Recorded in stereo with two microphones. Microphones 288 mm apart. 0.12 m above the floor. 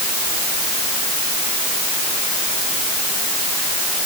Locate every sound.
Only background noise.